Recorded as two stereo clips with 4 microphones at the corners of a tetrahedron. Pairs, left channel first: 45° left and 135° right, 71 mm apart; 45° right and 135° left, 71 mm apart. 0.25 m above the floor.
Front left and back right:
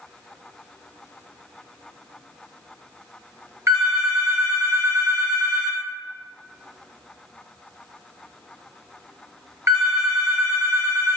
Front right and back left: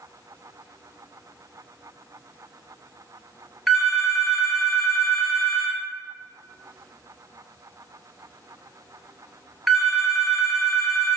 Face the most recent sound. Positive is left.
turn(degrees=-135)